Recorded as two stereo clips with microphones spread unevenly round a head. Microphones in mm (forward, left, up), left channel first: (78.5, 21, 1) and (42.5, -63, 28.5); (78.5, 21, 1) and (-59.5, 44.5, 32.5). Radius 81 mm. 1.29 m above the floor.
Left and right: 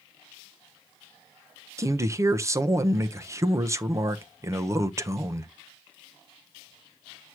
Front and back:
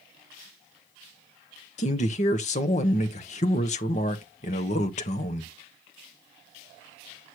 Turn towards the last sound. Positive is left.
turn(degrees=-50)